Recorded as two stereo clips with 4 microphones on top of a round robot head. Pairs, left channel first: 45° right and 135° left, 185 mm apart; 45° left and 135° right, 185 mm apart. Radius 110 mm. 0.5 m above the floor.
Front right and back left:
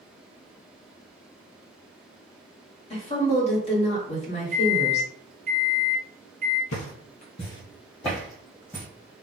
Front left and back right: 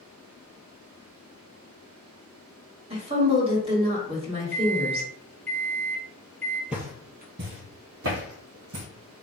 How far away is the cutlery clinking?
I don't hear cutlery clinking.